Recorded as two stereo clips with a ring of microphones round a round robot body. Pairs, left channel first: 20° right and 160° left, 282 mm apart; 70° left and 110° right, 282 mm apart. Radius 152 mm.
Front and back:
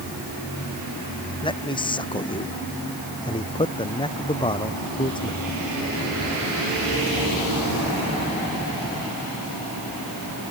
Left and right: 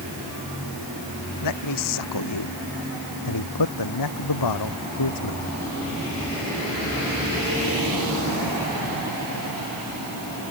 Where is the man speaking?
50° left.